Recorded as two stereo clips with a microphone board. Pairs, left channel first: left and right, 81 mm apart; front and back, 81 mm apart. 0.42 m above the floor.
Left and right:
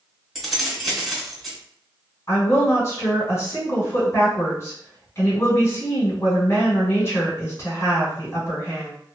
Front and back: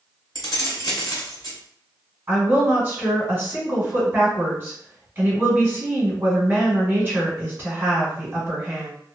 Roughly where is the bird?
I don't hear a bird.